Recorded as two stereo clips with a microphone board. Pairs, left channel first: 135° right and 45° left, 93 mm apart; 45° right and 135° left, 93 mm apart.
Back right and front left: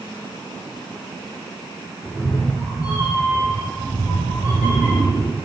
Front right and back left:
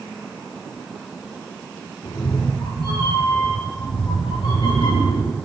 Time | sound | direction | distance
2.0 | a cat meowing | 40° right | 7 m